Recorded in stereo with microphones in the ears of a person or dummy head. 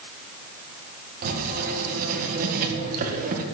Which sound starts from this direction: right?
Writing, at 1.2 s.